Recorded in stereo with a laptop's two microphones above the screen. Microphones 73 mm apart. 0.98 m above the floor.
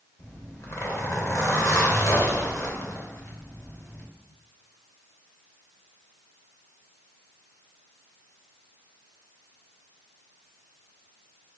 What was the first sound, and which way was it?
A zipper, 40° left (ahead or behind).